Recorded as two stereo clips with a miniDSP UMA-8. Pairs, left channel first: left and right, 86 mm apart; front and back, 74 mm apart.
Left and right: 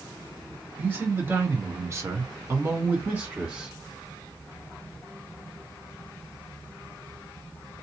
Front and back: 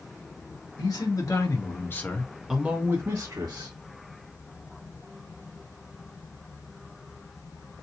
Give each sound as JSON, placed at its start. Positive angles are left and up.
{"t": 0.8, "sound": "a man speaking", "azimuth_deg": -25, "distance_m": 1.5}